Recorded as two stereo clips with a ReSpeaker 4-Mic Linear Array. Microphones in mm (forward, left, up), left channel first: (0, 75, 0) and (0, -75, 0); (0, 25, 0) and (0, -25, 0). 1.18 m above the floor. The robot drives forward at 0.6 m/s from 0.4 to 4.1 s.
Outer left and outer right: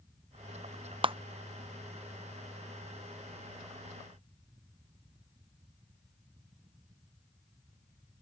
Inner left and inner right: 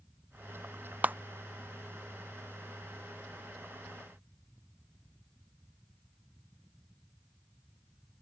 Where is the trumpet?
I don't hear a trumpet.